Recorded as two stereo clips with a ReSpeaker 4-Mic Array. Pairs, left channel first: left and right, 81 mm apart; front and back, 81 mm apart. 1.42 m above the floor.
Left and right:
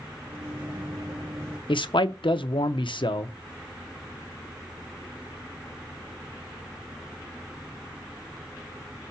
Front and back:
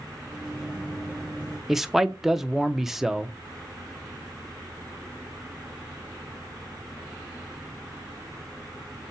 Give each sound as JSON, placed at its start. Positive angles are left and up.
{"t": 0.3, "sound": "a microwave", "azimuth_deg": -95, "distance_m": 2.5}
{"t": 1.7, "sound": "a man speaking", "azimuth_deg": 95, "distance_m": 0.8}